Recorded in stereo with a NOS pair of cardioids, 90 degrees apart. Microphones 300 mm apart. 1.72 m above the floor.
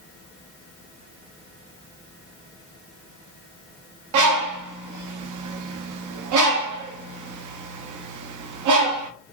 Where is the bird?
70° right, 0.9 m.